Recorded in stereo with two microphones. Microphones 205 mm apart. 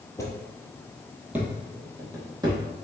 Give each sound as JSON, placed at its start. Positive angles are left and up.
{"t": 0.2, "sound": "footsteps", "side_deg": 15, "distance_m": 0.9}